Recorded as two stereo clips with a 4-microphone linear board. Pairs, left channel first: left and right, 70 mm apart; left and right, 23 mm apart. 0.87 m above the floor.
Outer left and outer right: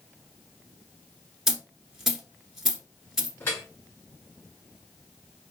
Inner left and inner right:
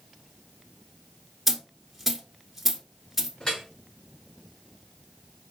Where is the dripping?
35° left (ahead or behind), 3.5 m.